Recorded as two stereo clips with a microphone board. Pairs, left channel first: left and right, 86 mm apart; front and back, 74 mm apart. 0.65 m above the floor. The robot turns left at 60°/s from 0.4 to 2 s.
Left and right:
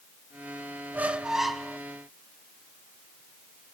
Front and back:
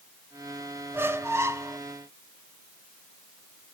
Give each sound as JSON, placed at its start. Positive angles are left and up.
{"t": 0.9, "sound": "a squeak", "azimuth_deg": -145, "distance_m": 0.7}